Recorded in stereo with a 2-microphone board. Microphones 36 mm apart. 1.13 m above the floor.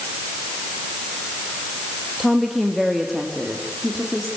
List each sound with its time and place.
2.2 s a woman speaking: 5° left (ahead or behind), 1.8 m; by 4.3 s 5° right (ahead or behind), 3.5 m